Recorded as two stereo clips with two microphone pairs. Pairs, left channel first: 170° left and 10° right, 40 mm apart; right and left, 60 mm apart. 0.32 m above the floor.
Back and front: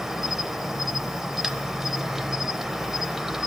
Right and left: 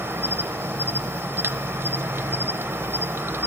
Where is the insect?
70° left, 0.8 m.